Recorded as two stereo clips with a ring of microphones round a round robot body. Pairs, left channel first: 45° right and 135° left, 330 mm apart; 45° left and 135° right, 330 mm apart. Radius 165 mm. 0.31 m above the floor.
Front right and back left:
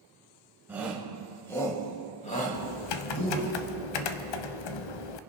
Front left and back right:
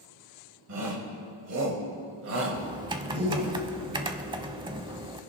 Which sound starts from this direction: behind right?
A shout, at 0.7 s.